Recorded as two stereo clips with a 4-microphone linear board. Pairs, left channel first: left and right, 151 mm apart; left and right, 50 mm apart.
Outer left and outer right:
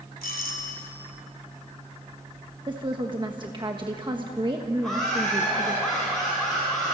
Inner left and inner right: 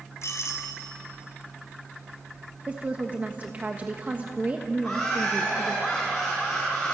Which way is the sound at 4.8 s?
Centre (ahead or behind).